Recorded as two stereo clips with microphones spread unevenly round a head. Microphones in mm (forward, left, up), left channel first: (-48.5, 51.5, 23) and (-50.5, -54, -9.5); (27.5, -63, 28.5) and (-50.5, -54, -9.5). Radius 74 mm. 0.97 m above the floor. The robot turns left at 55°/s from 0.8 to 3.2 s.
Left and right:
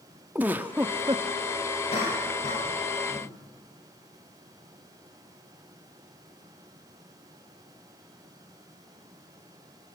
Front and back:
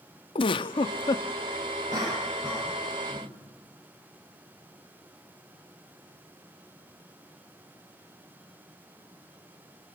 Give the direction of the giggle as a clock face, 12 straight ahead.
12 o'clock.